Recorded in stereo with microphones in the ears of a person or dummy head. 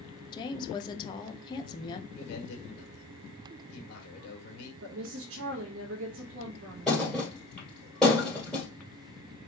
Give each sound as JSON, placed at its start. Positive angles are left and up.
{"t": 0.3, "sound": "a woman speaking", "side_deg": 30, "distance_m": 0.7}
{"t": 2.1, "sound": "a man speaking", "side_deg": 65, "distance_m": 2.0}
{"t": 4.8, "sound": "a woman speaking", "side_deg": -65, "distance_m": 1.0}
{"t": 6.9, "sound": "a thud", "side_deg": 5, "distance_m": 2.0}